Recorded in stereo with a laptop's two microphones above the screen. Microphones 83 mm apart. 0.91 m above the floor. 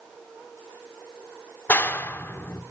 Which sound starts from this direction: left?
A clap, at 1.7 s.